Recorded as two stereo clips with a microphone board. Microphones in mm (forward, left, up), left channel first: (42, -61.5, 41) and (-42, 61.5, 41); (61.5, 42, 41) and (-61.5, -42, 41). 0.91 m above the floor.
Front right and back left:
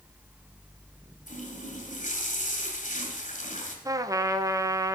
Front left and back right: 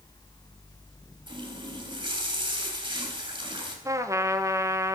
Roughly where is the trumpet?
Behind.